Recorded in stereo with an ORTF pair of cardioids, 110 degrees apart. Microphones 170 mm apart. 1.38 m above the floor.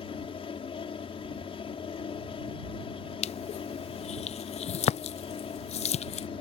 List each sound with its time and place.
0.0 s a fan: 35° left
3.2 s crushing: 40° left